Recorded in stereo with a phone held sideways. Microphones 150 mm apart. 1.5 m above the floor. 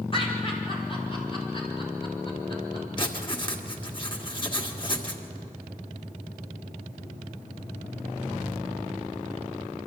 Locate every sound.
0.1 s laughter: 40° left (ahead or behind), 5 m; by 2.9 s 35° left (ahead or behind), 7 m
3.0 s writing: 35° left (ahead or behind), 1.7 m